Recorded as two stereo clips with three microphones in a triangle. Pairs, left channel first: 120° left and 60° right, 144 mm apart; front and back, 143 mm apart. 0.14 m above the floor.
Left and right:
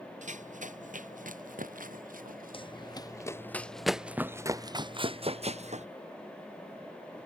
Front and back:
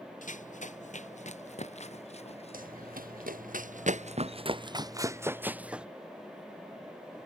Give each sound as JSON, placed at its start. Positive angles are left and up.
{"t": 0.2, "sound": "running footsteps", "azimuth_deg": -30}
{"t": 2.5, "sound": "running footsteps", "azimuth_deg": 170}